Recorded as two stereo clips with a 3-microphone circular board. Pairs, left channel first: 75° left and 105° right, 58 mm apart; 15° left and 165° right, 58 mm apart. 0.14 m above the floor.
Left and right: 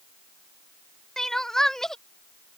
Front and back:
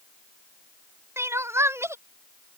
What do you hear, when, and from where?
1.2 s crying: 155° left